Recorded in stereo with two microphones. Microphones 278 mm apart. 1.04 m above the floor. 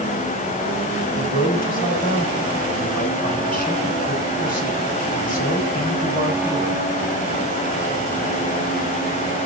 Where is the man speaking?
30° left (ahead or behind), 6 m.